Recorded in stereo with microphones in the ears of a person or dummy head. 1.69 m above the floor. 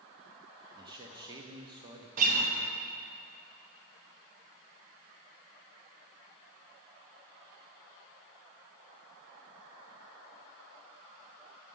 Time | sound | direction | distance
0.8 | a man speaking | 25° right (ahead or behind) | 0.6 m
2.2 | a guitar | 45° right (ahead or behind) | 0.8 m